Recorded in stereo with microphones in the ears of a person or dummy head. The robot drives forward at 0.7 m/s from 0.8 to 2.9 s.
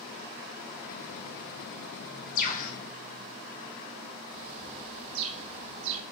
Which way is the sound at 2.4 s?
45° left (ahead or behind).